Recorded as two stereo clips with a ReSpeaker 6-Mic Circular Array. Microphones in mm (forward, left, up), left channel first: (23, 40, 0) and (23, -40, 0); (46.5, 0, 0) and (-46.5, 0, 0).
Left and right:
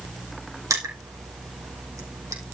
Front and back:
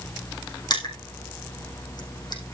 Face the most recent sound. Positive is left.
turn(degrees=-40)